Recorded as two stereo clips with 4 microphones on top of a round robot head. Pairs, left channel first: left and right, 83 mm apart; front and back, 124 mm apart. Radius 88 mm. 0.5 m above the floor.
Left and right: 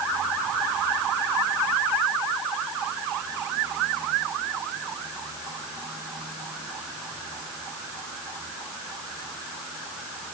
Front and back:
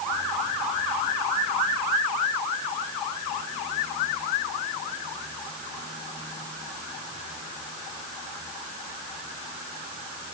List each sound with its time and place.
Only background noise.